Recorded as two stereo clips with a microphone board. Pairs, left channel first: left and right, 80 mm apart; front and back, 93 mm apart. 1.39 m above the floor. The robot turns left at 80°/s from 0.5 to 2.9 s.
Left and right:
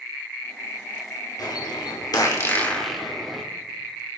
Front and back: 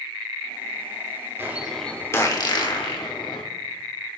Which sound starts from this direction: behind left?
A bird, at 1.4 s.